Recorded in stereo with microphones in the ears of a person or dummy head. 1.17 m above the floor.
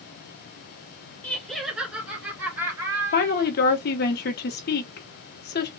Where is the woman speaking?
50° left (ahead or behind), 0.9 m.